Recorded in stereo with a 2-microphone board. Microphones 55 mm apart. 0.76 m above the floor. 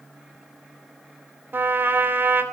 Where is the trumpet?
40° right (ahead or behind), 2.5 m.